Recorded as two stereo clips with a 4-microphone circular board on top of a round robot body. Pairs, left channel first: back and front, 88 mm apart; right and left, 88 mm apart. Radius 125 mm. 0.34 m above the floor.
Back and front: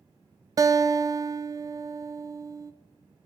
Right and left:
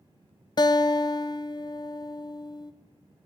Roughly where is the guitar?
Ahead right.